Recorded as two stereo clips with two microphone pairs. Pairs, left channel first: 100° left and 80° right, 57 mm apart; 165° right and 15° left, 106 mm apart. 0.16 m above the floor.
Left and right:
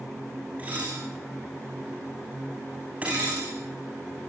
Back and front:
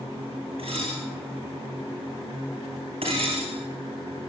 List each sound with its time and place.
0.6 s dishes clattering: 15° right, 9.5 m